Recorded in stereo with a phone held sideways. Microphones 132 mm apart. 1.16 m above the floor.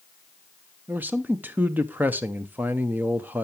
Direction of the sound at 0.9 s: 15° right (ahead or behind).